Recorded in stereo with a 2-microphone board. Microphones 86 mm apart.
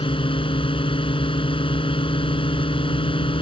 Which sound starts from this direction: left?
A drone, at 0.0 s.